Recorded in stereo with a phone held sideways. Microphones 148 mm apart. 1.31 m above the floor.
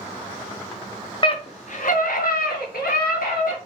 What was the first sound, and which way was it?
A scream, 35° left (ahead or behind).